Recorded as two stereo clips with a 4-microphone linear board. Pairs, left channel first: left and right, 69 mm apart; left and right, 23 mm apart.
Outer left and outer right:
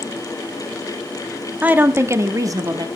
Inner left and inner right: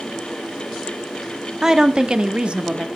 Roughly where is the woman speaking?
Right.